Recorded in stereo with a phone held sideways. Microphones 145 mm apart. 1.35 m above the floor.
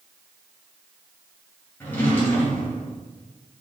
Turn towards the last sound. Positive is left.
turn(degrees=15)  # may be behind; listen again after turning